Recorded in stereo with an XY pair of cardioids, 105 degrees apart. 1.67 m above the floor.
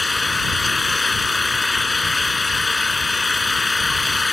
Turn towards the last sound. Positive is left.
turn(degrees=25)